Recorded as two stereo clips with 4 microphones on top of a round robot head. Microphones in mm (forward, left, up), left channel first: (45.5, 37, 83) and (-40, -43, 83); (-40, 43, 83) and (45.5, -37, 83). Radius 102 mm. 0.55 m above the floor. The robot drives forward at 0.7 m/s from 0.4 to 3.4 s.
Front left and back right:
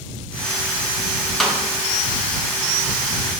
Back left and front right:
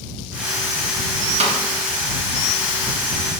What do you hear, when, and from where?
1.4 s a snare drum: 45° right, 1.2 m; by 1.6 s 50° right, 1.2 m